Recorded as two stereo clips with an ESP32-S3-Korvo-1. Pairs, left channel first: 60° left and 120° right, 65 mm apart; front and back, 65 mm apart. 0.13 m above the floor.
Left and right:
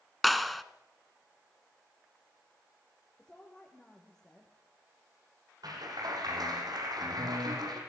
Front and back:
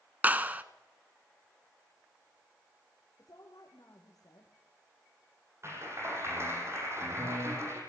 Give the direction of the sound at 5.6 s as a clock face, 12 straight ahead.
4 o'clock.